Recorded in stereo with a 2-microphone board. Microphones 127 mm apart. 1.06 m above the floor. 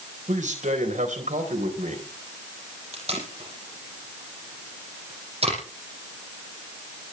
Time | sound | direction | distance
0.3 | a man speaking | 80° right | 4 m
2.9 | tape being pulled | 50° right (ahead or behind) | 6.5 m